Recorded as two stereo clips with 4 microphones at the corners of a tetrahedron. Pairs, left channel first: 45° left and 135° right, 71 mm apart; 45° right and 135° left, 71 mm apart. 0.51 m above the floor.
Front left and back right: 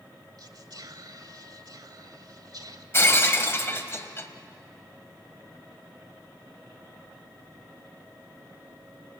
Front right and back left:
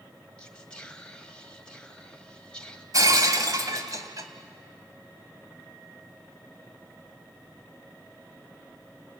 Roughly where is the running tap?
No running tap in this recording.